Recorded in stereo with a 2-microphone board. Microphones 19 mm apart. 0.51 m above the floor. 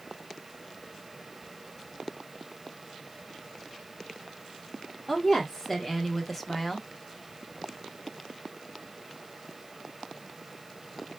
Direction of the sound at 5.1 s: 5° left (ahead or behind).